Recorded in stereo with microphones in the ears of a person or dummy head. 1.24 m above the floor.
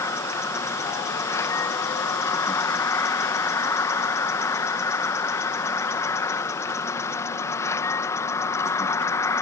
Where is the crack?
I don't hear a crack.